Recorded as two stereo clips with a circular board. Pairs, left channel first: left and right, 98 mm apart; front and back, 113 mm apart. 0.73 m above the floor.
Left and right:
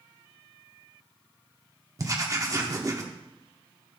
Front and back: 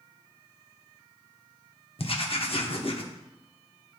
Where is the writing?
35° right, 0.9 m.